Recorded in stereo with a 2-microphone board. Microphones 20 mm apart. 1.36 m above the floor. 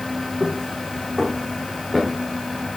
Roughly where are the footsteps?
Right.